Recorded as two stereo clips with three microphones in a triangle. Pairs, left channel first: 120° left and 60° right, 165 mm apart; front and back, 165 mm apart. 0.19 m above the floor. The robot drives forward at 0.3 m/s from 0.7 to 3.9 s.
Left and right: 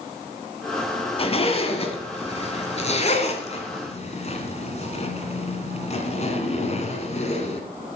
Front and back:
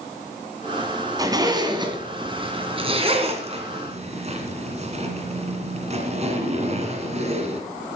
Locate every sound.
1.2 s a zipper: 130° left, 1.7 m; by 7.6 s 150° left, 2 m